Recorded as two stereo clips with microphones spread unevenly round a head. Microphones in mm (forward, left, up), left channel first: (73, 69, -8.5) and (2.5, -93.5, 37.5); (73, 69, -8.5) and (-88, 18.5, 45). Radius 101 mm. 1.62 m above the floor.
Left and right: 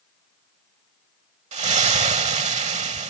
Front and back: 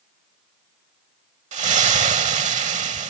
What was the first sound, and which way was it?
A splash, 145° right.